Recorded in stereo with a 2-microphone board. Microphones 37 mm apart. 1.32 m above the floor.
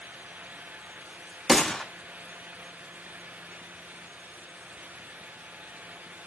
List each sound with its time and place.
1.5 s a gunshot: 10° left (ahead or behind), 0.6 m